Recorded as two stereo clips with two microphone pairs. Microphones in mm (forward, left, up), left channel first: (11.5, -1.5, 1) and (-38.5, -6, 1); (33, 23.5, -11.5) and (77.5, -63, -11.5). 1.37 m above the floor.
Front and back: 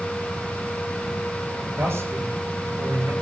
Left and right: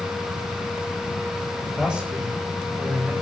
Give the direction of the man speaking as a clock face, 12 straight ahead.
5 o'clock.